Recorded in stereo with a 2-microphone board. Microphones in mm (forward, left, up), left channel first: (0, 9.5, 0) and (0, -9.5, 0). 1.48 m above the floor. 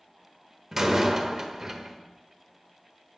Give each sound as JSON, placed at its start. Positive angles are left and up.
{"t": 0.7, "sound": "a door slam", "side_deg": -20, "distance_m": 0.7}